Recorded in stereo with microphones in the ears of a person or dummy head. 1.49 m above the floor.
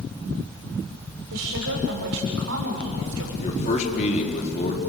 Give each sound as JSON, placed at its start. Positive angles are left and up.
{"t": 1.3, "sound": "a woman speaking", "side_deg": -85, "distance_m": 6.0}
{"t": 3.4, "sound": "a man speaking", "side_deg": 40, "distance_m": 4.0}